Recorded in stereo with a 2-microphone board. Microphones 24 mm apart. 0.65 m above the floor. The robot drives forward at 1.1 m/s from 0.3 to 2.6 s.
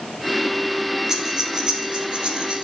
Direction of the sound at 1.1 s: 25° right (ahead or behind).